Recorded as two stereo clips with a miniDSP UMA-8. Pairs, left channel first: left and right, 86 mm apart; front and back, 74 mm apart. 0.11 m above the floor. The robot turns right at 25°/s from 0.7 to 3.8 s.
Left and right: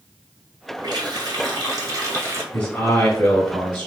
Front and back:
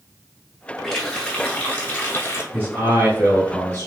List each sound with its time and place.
0.8 s a running tap: 80° right, 1.1 m; by 2.4 s 40° right, 1.1 m
2.5 s a man speaking: 135° left, 1.4 m; by 3.9 s 170° left, 1.4 m